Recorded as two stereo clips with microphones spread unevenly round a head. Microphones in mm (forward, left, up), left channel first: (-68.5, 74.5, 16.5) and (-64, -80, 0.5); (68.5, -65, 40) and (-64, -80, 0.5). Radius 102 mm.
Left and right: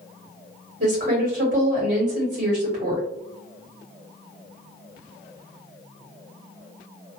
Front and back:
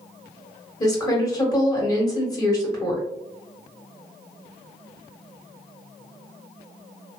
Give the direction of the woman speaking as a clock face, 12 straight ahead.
2 o'clock.